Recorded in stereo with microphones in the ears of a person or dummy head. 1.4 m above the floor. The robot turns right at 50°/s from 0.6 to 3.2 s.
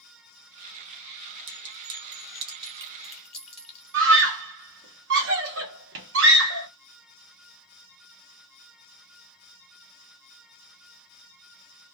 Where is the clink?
60° right (ahead or behind), 0.9 m; by 4.0 s centre (ahead or behind), 0.9 m.